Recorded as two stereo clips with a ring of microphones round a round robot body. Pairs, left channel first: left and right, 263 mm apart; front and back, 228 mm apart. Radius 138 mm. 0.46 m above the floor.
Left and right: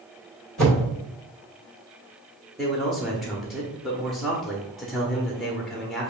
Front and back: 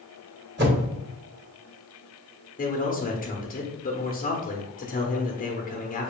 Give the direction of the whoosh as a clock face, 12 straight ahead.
6 o'clock.